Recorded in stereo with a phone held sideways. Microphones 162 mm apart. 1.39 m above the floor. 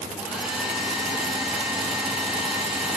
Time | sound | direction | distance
0.2 | a hair dryer | 5° right (ahead or behind) | 3.5 m